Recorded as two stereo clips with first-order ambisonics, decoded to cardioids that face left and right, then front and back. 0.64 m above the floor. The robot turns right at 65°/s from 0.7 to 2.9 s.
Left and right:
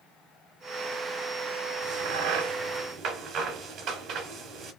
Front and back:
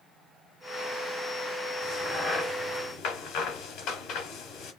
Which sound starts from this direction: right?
A crack, at 1.8 s.